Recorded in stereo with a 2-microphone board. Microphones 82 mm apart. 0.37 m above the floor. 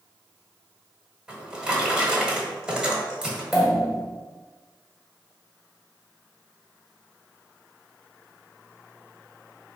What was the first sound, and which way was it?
A drawer, 10° right (ahead or behind).